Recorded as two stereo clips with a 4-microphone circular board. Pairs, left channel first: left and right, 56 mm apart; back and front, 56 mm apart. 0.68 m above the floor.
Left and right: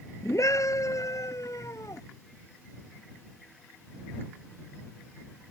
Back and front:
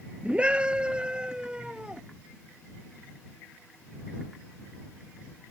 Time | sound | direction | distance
0.2 | a scream | 70° left | ?